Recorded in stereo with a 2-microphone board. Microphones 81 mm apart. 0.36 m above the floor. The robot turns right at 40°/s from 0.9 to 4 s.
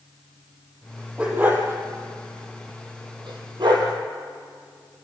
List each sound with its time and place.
1.2 s a dog barking: 15° right (ahead or behind), 4 m; by 3.9 s 60° right (ahead or behind), 4 m